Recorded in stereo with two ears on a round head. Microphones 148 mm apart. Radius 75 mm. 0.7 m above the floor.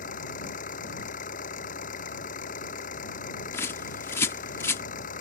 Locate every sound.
0.0 s an engine running: 55° left (ahead or behind)
3.5 s a bird: 15° left (ahead or behind)